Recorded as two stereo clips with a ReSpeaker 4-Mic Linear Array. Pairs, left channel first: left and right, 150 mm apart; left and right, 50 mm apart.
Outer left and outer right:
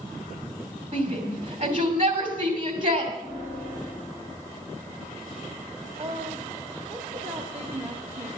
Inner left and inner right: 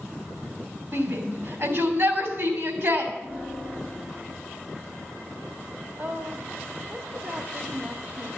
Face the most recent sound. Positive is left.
turn(degrees=-45)  # may be behind; listen again after turning